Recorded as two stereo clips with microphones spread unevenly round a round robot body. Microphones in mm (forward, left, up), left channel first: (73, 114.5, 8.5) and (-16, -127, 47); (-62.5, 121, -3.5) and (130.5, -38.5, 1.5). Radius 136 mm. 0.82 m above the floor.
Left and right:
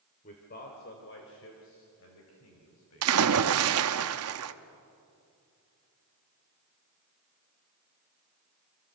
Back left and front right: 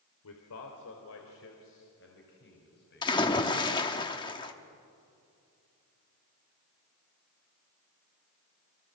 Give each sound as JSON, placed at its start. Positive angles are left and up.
{"t": 0.2, "sound": "a man speaking", "azimuth_deg": 130, "distance_m": 3.0}
{"t": 3.0, "sound": "a splash", "azimuth_deg": -145, "distance_m": 1.0}